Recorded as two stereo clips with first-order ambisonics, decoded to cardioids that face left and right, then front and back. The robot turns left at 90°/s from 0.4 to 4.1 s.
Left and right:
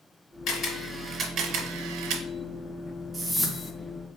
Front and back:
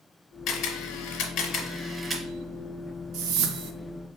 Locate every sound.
0.5 s a camera shutter: 45° left, 1.6 m; by 2.2 s 115° right, 1.6 m
3.1 s a whoosh: 155° right, 0.6 m; by 3.7 s 155° left, 0.6 m